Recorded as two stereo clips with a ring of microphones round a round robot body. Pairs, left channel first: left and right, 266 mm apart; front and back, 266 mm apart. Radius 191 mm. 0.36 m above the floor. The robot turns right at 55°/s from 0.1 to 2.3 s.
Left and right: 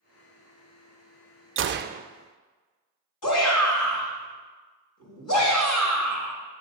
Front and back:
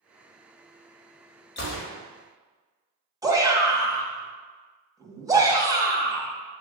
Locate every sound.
1.6 s a gunshot: 50° right, 0.5 m; by 2.0 s 25° right, 0.5 m
3.2 s a shout: 105° left, 2.5 m